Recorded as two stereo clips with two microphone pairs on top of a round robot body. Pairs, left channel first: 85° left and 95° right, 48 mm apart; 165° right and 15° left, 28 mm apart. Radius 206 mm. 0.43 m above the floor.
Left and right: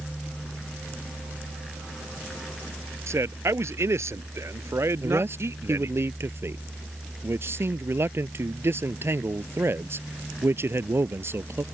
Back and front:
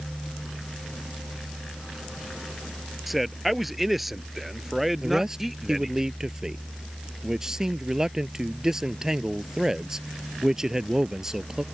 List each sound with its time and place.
3.1 s a man speaking: 75° right; by 6.0 s 70° right
5.0 s a man speaking: 60° right